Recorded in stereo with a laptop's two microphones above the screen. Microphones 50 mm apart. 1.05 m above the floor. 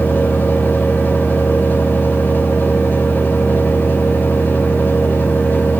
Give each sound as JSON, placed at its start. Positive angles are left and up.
{"t": 0.0, "sound": "a fan", "side_deg": 35, "distance_m": 2.5}